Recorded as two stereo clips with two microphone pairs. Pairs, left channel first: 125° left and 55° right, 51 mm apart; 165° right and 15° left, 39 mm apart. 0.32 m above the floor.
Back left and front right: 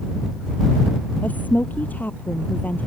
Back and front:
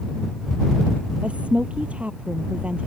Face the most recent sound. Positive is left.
turn(degrees=70)